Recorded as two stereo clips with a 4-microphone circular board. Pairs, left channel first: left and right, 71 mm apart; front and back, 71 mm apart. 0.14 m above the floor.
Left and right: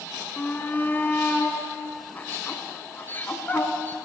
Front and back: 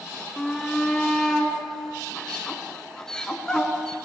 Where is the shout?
70° left, 1.3 m.